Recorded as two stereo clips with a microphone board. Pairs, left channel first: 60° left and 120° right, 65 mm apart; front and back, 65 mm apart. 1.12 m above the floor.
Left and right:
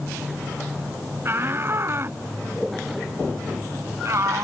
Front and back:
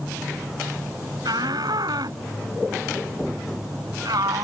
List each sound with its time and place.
1.2 s a shout: 175° right; by 4.4 s 160° right